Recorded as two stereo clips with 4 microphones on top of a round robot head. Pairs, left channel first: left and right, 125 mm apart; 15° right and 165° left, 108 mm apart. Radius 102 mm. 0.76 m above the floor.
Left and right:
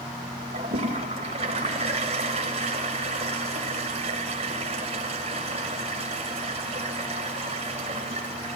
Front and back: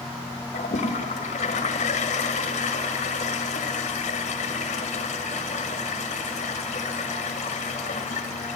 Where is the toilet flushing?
40° right, 1.8 m.